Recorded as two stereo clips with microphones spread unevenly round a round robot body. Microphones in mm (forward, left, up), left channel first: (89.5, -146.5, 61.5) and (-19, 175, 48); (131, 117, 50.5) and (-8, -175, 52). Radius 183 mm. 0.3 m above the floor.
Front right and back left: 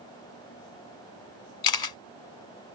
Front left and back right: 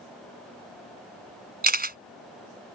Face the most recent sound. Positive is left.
turn(degrees=-55)